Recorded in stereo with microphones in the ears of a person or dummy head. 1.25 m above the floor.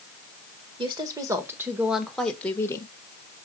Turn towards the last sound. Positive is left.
turn(degrees=20)  # may be behind; listen again after turning